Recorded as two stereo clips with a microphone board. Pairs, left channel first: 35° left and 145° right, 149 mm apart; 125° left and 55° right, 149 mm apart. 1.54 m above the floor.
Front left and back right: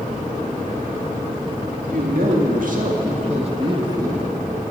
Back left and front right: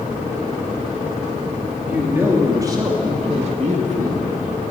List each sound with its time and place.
1.9 s a man speaking: 135° right, 3 m; by 4.3 s 70° right, 1.9 m